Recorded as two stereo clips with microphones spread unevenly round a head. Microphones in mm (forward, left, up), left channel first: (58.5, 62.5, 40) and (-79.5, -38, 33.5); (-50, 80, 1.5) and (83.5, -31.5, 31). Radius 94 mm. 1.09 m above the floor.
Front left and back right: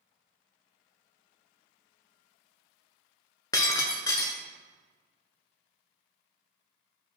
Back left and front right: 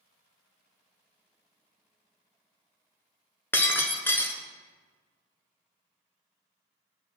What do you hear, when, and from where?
3.5 s breaking glass: 55° left, 1.0 m